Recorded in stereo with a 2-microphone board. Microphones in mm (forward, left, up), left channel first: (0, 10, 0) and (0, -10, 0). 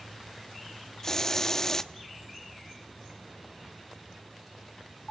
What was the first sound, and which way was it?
A hiss, 25° left (ahead or behind).